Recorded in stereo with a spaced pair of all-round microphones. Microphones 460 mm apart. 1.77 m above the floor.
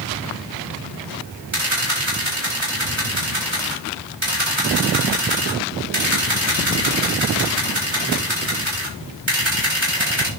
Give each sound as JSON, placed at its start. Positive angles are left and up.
{"t": 1.5, "sound": "a camera shutter", "side_deg": -70, "distance_m": 6.5}